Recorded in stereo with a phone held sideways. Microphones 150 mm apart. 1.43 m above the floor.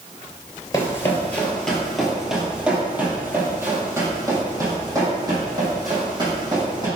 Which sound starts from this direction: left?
Running footsteps, at 0.7 s.